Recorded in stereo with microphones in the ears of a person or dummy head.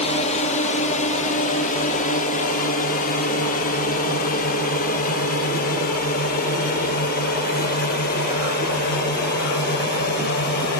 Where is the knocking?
I don't hear knocking.